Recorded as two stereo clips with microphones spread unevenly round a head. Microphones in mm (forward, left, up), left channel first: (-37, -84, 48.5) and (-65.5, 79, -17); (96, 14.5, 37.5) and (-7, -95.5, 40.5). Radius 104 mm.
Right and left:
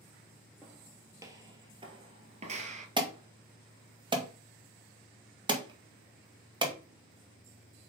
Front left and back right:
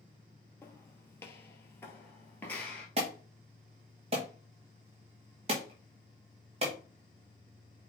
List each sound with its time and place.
0.6 s footsteps: 15° right, 1.7 m; by 2.9 s 115° left, 1.5 m
3.0 s an alarm: 165° left, 1.9 m